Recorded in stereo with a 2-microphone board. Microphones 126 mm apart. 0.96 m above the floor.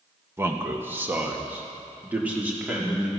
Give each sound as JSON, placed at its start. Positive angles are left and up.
{"t": 0.4, "sound": "a man speaking", "side_deg": -20, "distance_m": 1.2}